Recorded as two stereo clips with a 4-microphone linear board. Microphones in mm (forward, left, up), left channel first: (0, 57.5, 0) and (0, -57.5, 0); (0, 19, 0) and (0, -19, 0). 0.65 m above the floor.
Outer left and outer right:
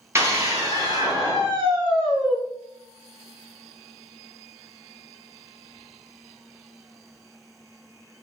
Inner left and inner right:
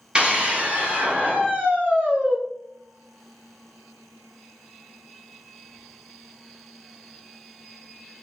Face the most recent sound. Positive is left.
turn(degrees=-45)  # may be behind; listen again after turning